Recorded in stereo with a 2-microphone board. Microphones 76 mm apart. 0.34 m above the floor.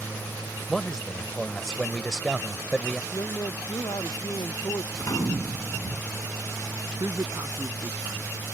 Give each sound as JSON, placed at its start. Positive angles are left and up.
{"t": 0.7, "sound": "a man speaking", "side_deg": 5}
{"t": 3.1, "sound": "a man speaking", "side_deg": 55}
{"t": 4.9, "sound": "a gunshot", "side_deg": 50}
{"t": 7.0, "sound": "a man speaking", "side_deg": -45}